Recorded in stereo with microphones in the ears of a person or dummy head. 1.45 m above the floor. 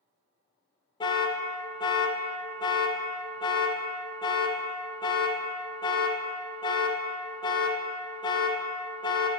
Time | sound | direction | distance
1.0 | an alarm | 15° left (ahead or behind) | 0.5 m